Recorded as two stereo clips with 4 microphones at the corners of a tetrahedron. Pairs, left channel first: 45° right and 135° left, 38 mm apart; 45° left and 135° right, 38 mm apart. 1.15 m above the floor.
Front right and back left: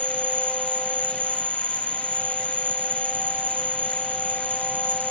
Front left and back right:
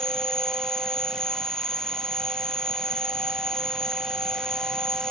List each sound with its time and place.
0.0 s an insect: 115° left